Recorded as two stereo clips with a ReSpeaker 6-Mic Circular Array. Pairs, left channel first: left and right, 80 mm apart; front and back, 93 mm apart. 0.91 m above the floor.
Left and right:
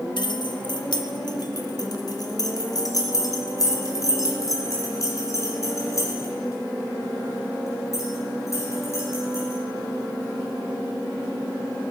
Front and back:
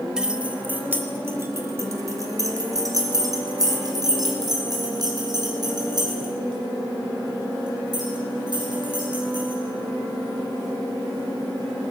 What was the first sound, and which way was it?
Keys jangling, 100° left.